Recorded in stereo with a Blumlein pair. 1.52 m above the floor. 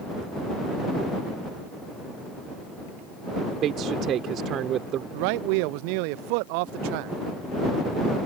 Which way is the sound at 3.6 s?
30° right.